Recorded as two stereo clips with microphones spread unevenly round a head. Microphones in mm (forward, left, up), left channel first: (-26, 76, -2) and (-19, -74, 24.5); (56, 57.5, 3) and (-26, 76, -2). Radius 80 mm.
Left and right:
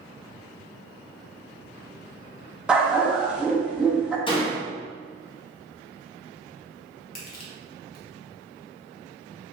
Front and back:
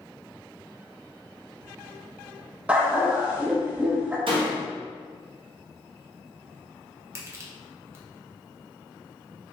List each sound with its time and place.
2.7 s a dog barking: 130° right, 0.6 m
4.3 s a door slam: 155° left, 1.2 m
7.2 s crushing: 115° left, 1.1 m